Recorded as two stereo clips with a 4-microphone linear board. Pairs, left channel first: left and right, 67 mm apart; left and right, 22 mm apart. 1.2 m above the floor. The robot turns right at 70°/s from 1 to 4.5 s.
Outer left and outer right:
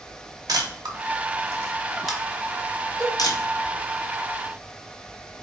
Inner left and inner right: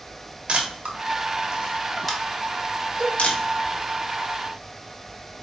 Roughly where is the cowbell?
Right.